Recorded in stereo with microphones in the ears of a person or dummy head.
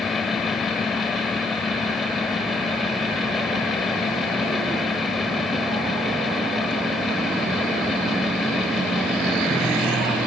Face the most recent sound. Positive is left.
turn(degrees=0)  # may be behind; listen again after turning